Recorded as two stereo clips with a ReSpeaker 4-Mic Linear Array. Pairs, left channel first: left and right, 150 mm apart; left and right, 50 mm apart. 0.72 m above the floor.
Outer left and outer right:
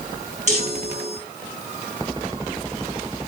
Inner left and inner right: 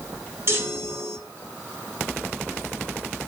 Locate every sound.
0.5 s a chime: 50° right (ahead or behind), 4 m